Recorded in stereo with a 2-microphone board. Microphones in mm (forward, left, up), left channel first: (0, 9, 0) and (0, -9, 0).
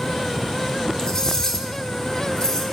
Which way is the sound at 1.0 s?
30° left (ahead or behind).